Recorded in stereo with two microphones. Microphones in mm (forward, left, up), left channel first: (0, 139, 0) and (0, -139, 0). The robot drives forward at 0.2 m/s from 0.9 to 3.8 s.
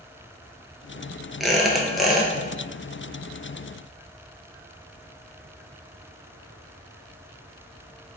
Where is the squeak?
Centre (ahead or behind), 0.6 m.